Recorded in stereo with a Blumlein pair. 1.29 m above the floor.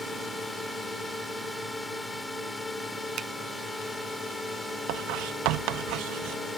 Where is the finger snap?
30° right.